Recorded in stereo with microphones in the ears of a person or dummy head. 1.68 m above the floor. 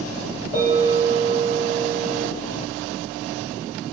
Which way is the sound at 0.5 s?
15° right (ahead or behind).